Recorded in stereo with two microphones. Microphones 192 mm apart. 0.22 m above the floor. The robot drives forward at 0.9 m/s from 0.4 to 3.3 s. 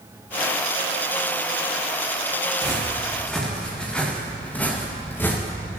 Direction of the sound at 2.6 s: Centre (ahead or behind).